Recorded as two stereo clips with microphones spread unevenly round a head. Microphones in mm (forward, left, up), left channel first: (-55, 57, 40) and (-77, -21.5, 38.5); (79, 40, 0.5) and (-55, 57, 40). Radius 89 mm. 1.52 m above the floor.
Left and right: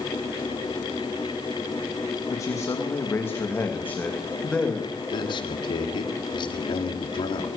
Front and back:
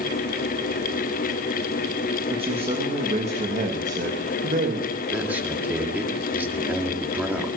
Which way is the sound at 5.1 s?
95° left.